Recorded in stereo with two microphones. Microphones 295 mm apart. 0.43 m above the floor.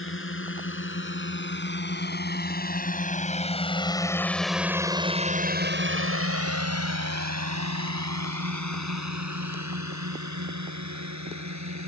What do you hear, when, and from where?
0.0 s a drone: 45° left (ahead or behind); by 11.9 s 65° right (ahead or behind)